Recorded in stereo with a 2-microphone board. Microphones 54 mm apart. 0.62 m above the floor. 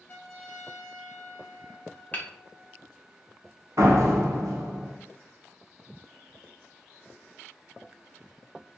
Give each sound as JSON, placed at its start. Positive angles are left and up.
{"t": 0.1, "sound": "a trumpet", "side_deg": 30, "distance_m": 0.7}
{"t": 2.1, "sound": "hammering", "side_deg": 30, "distance_m": 0.5}
{"t": 3.8, "sound": "a door slam", "side_deg": -60, "distance_m": 0.5}